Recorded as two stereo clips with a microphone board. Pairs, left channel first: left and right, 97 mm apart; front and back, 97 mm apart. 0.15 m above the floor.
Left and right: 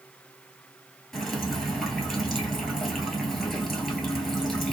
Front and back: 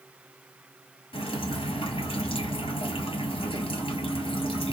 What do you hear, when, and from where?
1.1 s dripping: straight ahead, 0.9 m